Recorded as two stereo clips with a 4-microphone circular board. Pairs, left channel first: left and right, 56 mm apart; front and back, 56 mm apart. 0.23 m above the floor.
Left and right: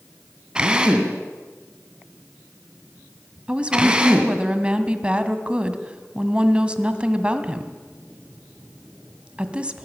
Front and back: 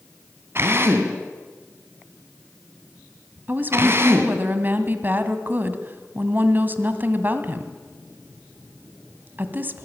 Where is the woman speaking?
150° right, 1.8 m.